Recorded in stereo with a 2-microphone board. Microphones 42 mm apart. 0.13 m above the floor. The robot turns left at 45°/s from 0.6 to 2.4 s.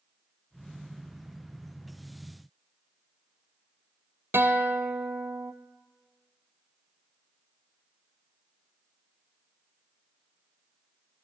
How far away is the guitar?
About 1.2 m.